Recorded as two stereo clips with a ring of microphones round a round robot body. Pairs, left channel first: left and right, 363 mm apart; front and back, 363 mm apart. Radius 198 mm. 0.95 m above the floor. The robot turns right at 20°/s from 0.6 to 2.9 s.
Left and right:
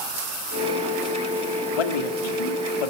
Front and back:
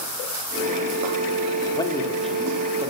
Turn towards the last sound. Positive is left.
turn(degrees=100)